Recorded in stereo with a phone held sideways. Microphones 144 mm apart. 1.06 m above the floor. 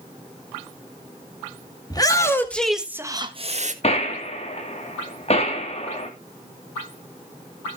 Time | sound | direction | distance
1.9 | a shout | 30° left (ahead or behind) | 2.5 m
3.8 | a gunshot | 45° left (ahead or behind) | 2.5 m